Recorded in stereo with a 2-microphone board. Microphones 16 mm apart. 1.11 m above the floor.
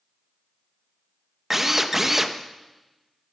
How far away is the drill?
About 0.8 m.